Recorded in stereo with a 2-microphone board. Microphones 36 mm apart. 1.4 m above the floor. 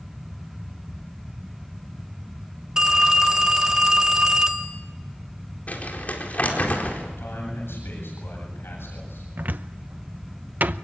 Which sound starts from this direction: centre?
A phone ringing, at 2.8 s.